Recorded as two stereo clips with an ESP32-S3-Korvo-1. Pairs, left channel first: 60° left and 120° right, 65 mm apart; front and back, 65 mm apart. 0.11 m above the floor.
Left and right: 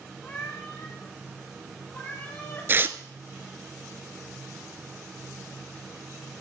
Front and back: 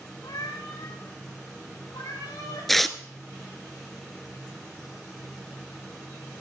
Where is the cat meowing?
Straight ahead, 5.5 m; by 2.7 s 5° right, 8 m.